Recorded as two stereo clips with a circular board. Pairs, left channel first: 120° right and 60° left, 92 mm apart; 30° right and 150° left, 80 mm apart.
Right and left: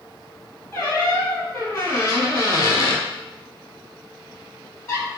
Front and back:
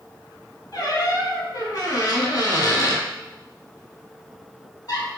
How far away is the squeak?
About 1.2 m.